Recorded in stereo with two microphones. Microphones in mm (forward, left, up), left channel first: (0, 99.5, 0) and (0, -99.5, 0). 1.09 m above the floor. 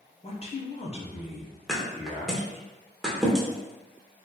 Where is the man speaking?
35° left (ahead or behind), 0.7 m.